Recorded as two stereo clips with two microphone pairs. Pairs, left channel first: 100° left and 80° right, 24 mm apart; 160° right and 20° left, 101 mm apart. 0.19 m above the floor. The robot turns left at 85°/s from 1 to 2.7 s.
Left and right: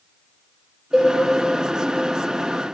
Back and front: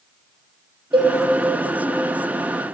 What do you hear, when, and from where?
0.9 s a cowbell: 10° right, 2 m; by 1.1 s 20° right, 2 m